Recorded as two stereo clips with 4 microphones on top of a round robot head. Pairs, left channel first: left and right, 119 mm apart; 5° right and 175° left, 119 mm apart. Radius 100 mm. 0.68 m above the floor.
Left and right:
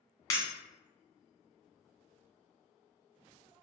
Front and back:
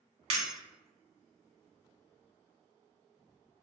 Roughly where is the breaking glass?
Behind left.